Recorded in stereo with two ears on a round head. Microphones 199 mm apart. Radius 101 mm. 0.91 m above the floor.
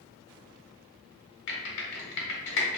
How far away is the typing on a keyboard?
About 1.1 m.